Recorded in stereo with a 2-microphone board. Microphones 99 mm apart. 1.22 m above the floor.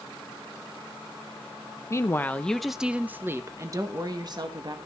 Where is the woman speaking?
30° left (ahead or behind), 0.9 m; by 4.8 s 50° right (ahead or behind), 1.6 m.